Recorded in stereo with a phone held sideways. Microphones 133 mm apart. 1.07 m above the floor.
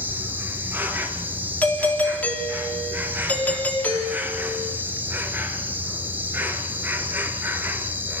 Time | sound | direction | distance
0.0 | an insect | 15° right (ahead or behind) | 2 m
1.6 | a doorbell | 15° left (ahead or behind) | 3.5 m